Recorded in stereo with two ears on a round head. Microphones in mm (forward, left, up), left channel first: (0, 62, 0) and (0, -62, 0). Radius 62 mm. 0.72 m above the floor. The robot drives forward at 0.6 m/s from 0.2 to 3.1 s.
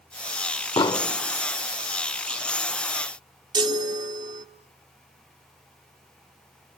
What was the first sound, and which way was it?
An explosion, 30° left (ahead or behind).